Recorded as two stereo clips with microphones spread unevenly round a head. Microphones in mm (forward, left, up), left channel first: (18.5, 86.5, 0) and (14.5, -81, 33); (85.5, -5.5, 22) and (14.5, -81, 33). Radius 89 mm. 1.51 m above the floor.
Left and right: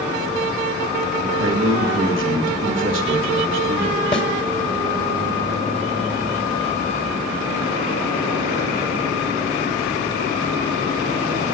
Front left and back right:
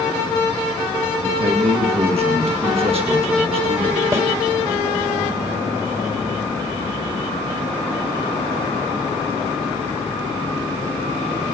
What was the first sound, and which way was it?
A man speaking, 110° right.